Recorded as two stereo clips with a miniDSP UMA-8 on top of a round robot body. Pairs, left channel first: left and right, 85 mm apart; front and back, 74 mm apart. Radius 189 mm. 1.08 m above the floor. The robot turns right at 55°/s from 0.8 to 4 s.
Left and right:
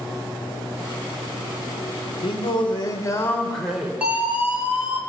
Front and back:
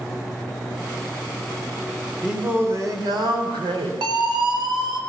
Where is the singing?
100° left, 3 m; by 3.9 s 170° right, 3 m.